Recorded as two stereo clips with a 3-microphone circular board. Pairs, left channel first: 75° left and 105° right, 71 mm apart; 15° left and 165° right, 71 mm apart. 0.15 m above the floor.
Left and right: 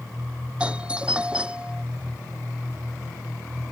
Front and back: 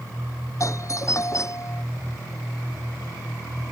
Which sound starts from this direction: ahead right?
A doorbell, at 0.6 s.